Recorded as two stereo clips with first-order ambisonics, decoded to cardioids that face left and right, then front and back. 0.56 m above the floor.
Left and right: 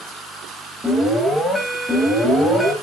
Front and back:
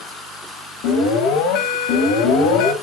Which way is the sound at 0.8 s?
Straight ahead.